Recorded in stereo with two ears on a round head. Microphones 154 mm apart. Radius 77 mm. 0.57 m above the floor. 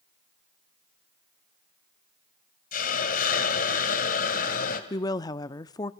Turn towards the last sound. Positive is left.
turn(degrees=20)  # may be behind; listen again after turning